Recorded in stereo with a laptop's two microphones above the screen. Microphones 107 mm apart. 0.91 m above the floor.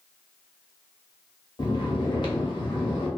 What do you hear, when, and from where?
1.6 s snoring: 50° left (ahead or behind), 0.9 m